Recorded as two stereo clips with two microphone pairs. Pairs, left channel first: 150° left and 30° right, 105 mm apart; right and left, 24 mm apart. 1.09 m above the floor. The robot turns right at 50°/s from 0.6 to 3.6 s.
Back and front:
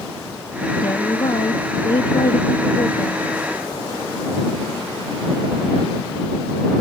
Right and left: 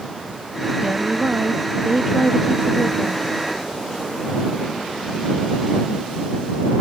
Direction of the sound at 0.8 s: 100° left.